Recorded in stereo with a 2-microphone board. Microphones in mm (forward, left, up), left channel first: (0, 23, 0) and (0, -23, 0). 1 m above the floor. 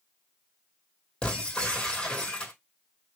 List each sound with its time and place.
1.2 s breaking glass: 20° left (ahead or behind), 2.5 m